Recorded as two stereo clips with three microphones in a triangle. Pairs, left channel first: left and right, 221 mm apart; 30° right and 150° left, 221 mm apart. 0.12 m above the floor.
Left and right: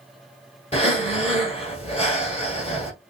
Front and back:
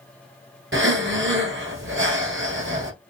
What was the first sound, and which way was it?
Breathing, 145° left.